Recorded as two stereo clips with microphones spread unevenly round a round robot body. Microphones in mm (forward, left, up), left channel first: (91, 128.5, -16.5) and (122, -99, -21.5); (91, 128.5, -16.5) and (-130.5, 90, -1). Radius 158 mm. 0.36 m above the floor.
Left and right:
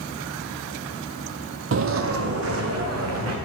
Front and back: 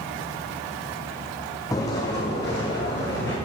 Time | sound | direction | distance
1.7 | footsteps | 65° right | 0.5 m